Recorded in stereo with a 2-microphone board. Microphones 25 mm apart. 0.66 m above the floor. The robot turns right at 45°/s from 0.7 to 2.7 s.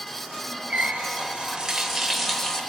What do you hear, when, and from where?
0.7 s a running tap: 65° right, 1.9 m; by 2.6 s 20° left, 1.9 m